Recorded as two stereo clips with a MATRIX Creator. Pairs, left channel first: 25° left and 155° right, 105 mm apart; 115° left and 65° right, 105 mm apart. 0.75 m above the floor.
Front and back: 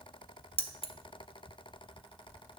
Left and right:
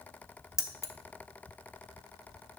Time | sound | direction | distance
0.6 | keys jangling | 50° left | 0.8 m